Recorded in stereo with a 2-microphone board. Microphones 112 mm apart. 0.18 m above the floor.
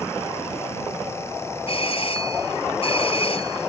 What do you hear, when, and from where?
1.7 s a doorbell: 60° left (ahead or behind)